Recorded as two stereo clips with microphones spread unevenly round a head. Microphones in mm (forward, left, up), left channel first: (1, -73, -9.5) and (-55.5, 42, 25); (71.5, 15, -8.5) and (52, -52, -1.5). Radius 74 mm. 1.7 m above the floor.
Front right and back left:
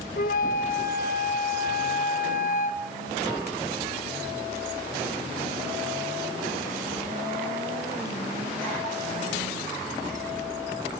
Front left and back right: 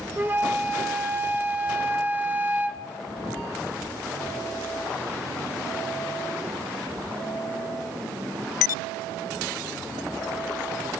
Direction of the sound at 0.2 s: 60° right.